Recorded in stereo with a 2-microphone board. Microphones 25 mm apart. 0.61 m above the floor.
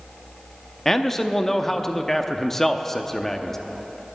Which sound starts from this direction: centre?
A man speaking, at 0.8 s.